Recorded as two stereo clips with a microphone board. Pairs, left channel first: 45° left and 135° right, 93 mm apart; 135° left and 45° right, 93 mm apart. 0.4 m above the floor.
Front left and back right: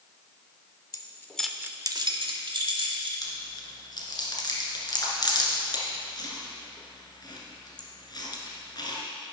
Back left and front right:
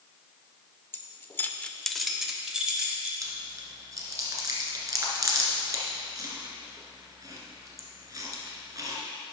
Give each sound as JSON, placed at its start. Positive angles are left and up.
{"t": 0.9, "sound": "keys jangling", "azimuth_deg": 75, "distance_m": 0.8}
{"t": 3.2, "sound": "chewing", "azimuth_deg": 5, "distance_m": 1.7}